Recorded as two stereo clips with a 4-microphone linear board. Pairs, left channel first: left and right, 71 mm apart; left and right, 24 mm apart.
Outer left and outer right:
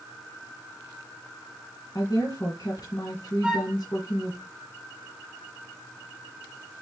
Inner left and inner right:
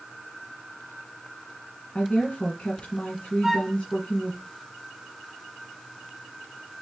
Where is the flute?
10° right (ahead or behind), 2.5 m.